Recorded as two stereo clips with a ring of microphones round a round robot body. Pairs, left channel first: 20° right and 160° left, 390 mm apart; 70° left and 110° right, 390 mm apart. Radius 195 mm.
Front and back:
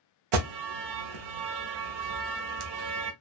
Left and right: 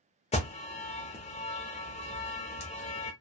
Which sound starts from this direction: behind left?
An alarm, at 0.3 s.